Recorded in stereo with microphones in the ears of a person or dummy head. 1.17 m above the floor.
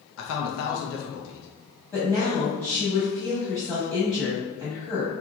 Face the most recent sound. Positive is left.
turn(degrees=10)  # may be behind; listen again after turning